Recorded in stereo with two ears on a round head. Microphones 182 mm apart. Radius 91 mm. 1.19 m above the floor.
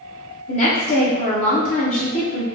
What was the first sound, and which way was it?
A woman speaking, 35° left (ahead or behind).